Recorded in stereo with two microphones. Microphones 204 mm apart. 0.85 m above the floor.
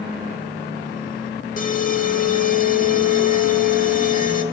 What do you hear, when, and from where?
1.6 s an alarm: 40° left (ahead or behind), 1.3 m